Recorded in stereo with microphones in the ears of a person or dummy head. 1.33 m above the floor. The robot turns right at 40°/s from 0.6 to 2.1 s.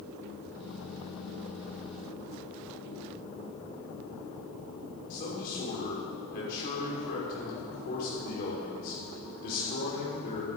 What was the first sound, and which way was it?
A man speaking, 60° left (ahead or behind).